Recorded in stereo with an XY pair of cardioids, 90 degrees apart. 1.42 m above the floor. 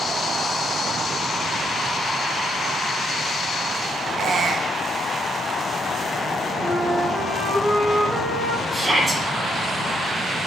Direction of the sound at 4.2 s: 60° right.